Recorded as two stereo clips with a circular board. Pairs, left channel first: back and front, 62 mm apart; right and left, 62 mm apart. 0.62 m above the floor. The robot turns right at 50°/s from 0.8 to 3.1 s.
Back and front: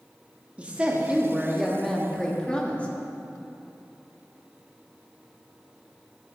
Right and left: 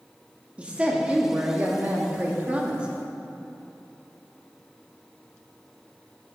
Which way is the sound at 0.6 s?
45° left.